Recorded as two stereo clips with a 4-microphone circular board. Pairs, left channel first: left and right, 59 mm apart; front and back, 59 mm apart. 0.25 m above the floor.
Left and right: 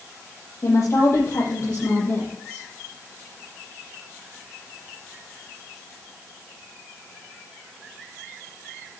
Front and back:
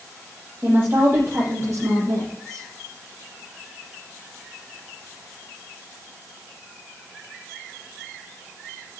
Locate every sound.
0.6 s a woman speaking: 130° left, 7.5 m; by 2.6 s 140° left, 9 m